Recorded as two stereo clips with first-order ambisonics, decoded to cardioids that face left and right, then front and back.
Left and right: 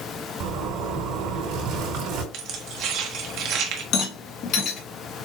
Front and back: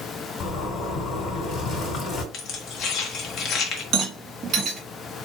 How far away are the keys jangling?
About 1.2 m.